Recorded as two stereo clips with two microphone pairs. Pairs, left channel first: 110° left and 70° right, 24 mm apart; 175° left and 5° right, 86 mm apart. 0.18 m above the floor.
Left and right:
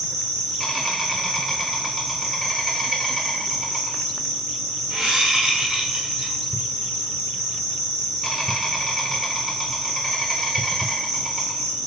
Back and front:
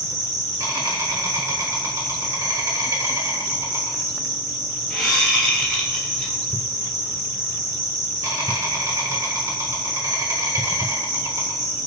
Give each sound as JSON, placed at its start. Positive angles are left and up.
{"t": 0.0, "sound": "an insect", "azimuth_deg": 0, "distance_m": 1.7}
{"t": 4.9, "sound": "a whoosh", "azimuth_deg": -110, "distance_m": 1.6}